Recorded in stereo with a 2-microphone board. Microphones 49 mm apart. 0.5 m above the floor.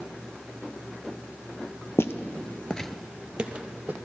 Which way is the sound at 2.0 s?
60° left (ahead or behind).